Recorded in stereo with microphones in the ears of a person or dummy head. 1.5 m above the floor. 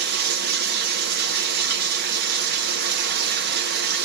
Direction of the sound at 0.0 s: 60° right (ahead or behind).